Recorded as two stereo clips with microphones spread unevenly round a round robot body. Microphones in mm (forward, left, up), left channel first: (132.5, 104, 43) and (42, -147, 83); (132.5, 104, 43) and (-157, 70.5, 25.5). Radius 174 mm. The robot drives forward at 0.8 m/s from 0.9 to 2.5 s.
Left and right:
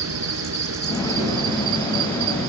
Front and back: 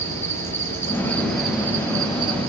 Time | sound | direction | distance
0.0 | an insect | 75° right | 3.5 m